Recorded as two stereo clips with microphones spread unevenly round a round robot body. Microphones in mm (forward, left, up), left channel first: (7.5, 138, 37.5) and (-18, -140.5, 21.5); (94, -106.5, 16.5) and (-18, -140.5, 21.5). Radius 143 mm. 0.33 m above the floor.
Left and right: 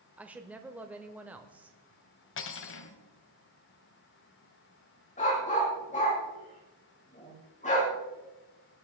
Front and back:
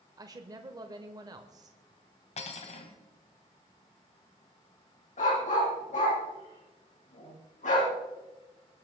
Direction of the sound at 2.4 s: 40° left.